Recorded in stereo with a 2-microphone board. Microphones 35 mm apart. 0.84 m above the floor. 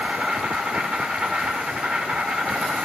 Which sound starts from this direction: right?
An insect, at 0.0 s.